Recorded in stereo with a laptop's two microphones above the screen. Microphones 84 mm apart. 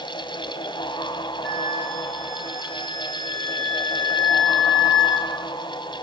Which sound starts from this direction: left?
A fan, at 0.0 s.